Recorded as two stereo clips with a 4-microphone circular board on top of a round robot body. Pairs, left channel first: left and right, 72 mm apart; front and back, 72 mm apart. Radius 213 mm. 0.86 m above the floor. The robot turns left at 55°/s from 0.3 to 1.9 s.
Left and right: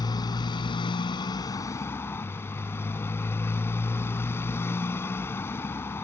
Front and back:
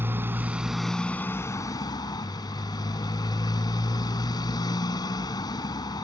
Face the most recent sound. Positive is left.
turn(degrees=30)